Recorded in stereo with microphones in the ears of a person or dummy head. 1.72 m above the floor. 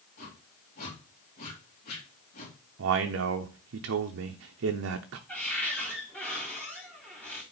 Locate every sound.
0.2 s a whoosh: 50° left (ahead or behind), 2.5 m
2.8 s a man speaking: 60° right (ahead or behind), 0.7 m
5.3 s a cupboard door: 10° left (ahead or behind), 3.5 m